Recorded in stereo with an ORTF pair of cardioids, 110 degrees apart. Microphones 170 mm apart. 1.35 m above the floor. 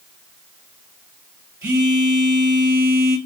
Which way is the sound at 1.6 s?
20° right.